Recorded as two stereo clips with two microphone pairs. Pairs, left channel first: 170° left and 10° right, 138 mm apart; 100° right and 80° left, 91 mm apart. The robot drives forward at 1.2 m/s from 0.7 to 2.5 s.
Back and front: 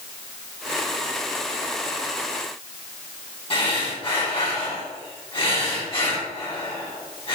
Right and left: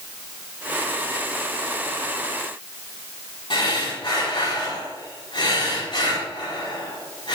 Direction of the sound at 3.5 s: 135° right.